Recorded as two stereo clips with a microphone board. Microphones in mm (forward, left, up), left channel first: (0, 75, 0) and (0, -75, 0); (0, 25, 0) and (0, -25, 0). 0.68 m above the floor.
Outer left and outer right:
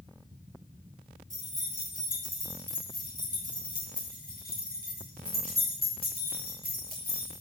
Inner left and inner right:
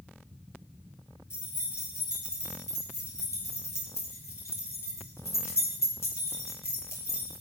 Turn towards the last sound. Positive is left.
turn(degrees=85)